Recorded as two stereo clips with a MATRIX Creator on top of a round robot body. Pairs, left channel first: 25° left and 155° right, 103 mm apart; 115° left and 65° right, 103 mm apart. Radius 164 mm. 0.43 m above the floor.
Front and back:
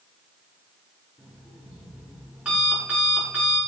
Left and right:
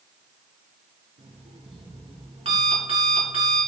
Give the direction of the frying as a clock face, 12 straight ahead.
I don't hear frying.